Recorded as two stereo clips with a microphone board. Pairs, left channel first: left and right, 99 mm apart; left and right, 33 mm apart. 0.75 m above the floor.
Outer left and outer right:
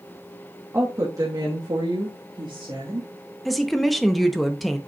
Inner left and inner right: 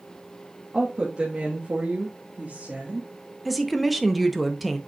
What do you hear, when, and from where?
0.7 s a woman speaking: 30° right (ahead or behind), 1.2 m; by 3.1 s 45° right (ahead or behind), 1.5 m
3.5 s a woman speaking: centre (ahead or behind), 0.7 m